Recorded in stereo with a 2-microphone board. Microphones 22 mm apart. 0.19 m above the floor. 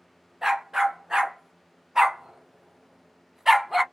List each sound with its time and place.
0.4 s a dog barking: 25° right (ahead or behind), 1.4 m; by 3.8 s 10° right (ahead or behind), 0.7 m